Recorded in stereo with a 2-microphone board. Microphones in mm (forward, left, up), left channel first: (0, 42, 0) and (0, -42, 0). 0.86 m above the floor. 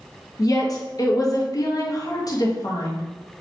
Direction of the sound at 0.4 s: 45° left (ahead or behind).